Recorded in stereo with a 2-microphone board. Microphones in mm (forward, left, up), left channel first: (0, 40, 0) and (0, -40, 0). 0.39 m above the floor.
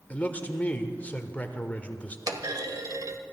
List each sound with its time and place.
0.1 s a man speaking: 20° left (ahead or behind), 1.0 m
2.3 s a clunk: 50° right (ahead or behind), 1.0 m